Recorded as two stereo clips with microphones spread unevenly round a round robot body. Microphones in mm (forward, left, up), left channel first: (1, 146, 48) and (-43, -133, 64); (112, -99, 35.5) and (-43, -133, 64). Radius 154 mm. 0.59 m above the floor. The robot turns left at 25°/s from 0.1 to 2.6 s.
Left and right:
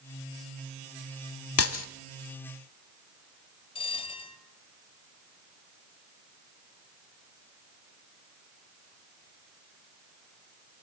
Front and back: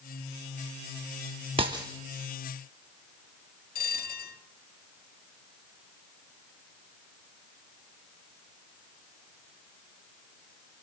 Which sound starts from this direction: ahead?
A bell, at 3.8 s.